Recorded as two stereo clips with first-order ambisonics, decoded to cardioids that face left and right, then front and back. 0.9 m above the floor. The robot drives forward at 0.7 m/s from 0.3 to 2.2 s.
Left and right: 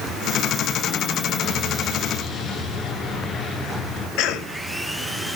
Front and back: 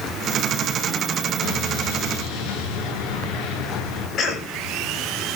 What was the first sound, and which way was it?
An explosion, 20° left.